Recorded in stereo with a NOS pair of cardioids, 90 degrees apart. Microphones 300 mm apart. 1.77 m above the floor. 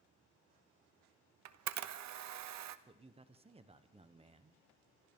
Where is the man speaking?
20° right, 1.2 m.